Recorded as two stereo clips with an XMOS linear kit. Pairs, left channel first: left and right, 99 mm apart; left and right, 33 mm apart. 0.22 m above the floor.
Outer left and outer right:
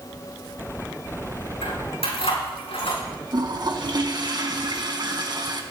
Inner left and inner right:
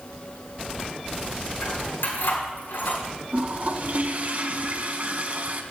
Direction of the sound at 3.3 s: 50° right (ahead or behind).